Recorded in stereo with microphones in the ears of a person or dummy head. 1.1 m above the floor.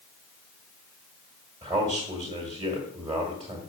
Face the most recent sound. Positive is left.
turn(degrees=-20)  # may be behind; listen again after turning